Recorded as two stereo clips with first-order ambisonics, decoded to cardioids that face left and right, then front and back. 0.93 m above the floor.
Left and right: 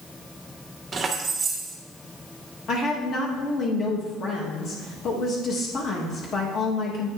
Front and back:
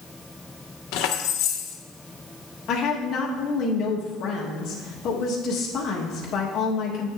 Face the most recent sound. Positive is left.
turn(degrees=40)